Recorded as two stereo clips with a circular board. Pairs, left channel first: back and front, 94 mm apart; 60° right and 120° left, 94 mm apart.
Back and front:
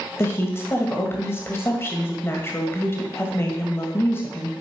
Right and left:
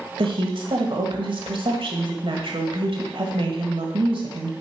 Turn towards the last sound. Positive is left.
turn(degrees=120)